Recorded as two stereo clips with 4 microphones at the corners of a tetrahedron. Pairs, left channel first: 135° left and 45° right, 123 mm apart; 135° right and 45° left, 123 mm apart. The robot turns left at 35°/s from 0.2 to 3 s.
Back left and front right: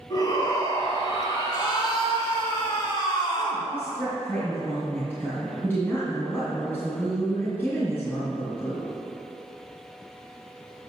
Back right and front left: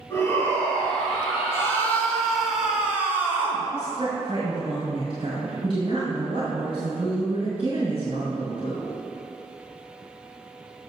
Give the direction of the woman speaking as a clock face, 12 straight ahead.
10 o'clock.